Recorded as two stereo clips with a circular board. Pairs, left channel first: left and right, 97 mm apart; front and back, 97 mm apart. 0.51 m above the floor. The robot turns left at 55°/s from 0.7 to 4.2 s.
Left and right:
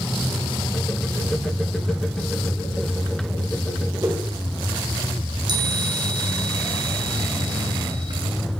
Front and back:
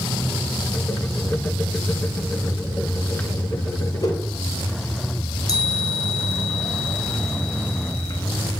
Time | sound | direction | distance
4.0 | a whoosh | 40° right | 2.0 m
5.5 | a chime | 50° right | 1.5 m